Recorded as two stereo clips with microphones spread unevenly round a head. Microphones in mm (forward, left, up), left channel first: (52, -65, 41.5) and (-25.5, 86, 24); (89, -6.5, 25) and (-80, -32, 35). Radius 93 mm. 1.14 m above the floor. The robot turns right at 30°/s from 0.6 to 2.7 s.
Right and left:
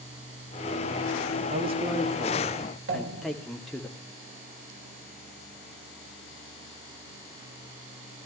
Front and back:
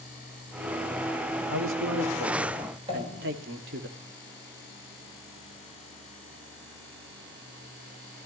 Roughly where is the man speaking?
Behind.